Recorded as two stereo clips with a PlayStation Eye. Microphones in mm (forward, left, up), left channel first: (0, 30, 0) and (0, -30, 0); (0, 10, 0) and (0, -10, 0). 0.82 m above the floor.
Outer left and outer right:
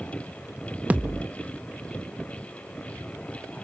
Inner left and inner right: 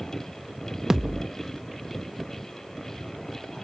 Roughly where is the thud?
Right.